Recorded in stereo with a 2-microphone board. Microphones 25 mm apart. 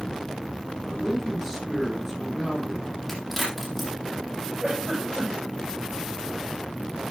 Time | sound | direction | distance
0.9 | a man speaking | 10° right (ahead or behind) | 5 m
3.1 | a crack | 5° left (ahead or behind) | 8.5 m
4.6 | a giggle | 5° left (ahead or behind) | 9.5 m